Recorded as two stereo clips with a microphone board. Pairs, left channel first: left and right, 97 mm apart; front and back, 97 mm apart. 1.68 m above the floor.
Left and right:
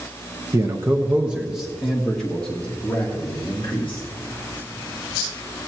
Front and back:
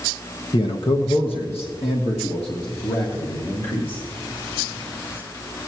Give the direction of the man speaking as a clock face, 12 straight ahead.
1 o'clock.